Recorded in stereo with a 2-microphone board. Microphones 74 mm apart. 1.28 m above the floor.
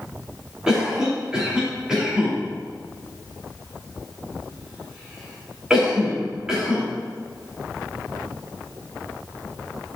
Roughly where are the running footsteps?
I don't hear running footsteps.